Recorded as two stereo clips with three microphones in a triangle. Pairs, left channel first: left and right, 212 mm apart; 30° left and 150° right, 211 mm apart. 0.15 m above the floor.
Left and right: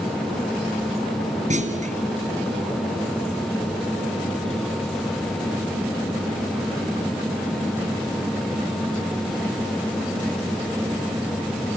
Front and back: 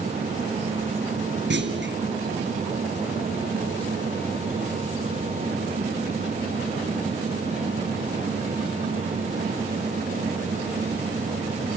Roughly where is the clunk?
Behind right.